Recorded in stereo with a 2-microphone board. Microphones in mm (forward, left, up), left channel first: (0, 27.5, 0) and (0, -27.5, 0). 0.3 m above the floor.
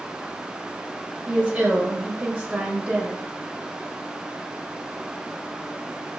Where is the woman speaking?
20° right (ahead or behind), 1.2 m.